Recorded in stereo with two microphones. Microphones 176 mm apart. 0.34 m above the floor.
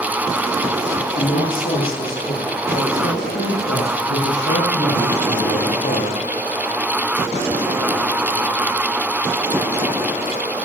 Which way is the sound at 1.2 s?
50° left (ahead or behind).